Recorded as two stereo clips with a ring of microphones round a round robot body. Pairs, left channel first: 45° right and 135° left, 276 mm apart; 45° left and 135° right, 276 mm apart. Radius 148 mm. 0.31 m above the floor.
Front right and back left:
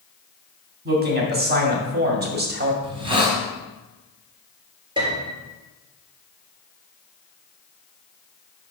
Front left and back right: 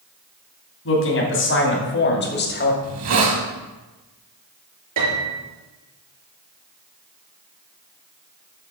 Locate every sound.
0.8 s a man speaking: 85° left, 3 m; by 2.7 s 90° left, 2 m
2.8 s a hiss: 155° right, 2.5 m
5.0 s a piano: 150° right, 3.5 m